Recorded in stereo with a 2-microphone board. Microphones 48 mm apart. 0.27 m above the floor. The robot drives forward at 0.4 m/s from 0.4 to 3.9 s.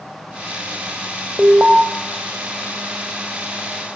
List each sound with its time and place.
1.4 s an alarm: 15° right (ahead or behind), 1.7 m